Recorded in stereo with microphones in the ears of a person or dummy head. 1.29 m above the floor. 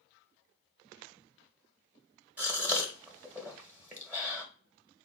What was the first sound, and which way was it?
A gasp, 15° right (ahead or behind).